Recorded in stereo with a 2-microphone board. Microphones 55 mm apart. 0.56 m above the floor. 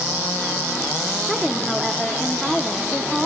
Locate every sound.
1.3 s a woman speaking: centre (ahead or behind), 0.8 m